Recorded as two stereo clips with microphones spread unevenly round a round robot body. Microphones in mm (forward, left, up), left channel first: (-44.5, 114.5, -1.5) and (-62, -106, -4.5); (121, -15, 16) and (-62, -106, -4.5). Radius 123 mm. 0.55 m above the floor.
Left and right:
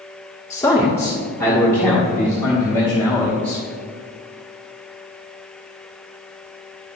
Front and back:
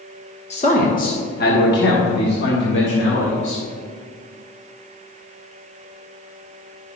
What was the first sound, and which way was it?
A man speaking, 25° left.